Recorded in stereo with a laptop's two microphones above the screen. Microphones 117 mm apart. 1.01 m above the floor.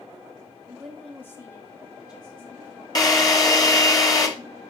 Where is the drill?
35° left (ahead or behind), 2 m.